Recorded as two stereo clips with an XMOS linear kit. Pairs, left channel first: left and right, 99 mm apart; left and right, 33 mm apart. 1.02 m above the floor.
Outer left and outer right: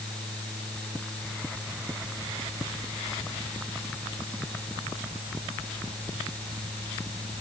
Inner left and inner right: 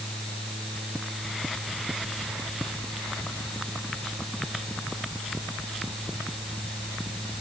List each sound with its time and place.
Only background noise.